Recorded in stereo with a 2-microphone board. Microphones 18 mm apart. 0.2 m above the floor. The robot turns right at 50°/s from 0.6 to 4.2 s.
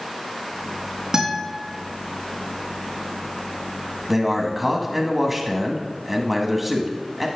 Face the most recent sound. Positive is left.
turn(degrees=-15)  # may be behind; listen again after turning